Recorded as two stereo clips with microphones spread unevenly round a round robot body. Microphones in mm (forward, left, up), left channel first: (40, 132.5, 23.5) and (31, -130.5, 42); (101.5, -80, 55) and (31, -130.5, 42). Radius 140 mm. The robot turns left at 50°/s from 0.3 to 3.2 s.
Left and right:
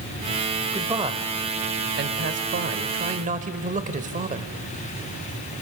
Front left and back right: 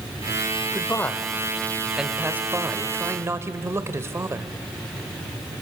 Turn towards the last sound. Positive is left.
turn(degrees=-140)